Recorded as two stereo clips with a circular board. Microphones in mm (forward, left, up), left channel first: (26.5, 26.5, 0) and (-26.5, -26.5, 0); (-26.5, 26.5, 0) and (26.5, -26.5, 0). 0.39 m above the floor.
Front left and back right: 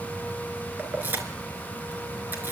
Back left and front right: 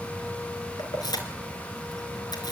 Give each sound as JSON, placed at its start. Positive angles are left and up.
{"t": 0.8, "sound": "keys jangling", "azimuth_deg": 160, "distance_m": 4.0}